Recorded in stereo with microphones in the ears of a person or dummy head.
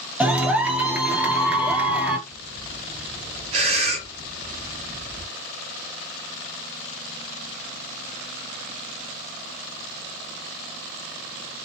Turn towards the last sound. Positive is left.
turn(degrees=-30)  # may be behind; listen again after turning